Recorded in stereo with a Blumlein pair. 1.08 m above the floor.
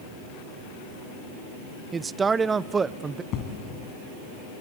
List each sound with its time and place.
1.9 s a man speaking: 15° right, 0.5 m
3.3 s an explosion: 35° left, 3.5 m